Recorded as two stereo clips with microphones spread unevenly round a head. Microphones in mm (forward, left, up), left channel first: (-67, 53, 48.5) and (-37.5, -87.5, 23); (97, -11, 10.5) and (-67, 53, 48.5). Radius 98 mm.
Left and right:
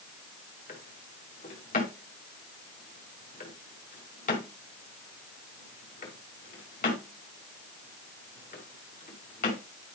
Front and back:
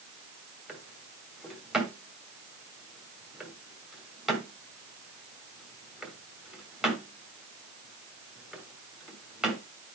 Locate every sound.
0.7 s a drawer: 80° left, 1.9 m